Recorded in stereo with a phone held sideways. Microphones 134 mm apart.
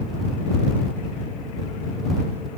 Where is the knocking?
No knocking in this recording.